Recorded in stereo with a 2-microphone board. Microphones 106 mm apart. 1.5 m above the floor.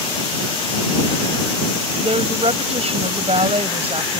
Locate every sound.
2.0 s a woman speaking: 70° right (ahead or behind)